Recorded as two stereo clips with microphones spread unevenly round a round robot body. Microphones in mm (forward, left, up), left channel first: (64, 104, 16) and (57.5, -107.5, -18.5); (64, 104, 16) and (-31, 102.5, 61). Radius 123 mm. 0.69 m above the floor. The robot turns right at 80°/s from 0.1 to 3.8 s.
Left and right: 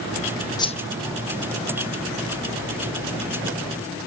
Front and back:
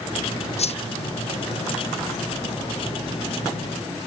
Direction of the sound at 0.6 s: 15° left.